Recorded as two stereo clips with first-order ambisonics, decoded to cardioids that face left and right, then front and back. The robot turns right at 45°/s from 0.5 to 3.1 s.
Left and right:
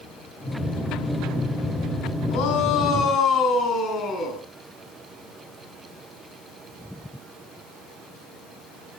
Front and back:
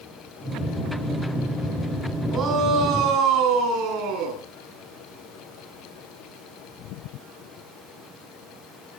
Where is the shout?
110° left, 10 m; by 4.4 s 145° left, 10 m.